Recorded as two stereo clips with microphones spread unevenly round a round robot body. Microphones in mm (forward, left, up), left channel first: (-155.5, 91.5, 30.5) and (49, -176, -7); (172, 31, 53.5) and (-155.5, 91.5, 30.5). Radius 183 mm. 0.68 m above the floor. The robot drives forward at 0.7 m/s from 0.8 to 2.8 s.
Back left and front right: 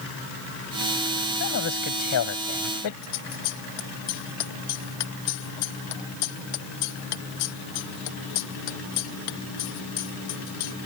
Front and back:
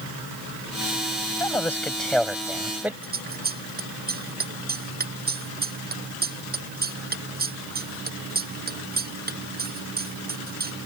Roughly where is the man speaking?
Left.